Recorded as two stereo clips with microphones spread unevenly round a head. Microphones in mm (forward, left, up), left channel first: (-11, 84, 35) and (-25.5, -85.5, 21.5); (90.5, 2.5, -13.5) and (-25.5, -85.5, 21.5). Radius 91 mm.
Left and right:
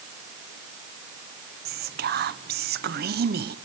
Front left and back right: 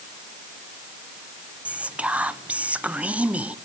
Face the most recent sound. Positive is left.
turn(degrees=-60)